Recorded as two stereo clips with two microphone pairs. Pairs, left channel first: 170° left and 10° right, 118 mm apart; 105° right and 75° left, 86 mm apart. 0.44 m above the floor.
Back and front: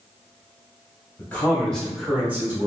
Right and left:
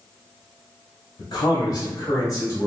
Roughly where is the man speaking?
Behind right.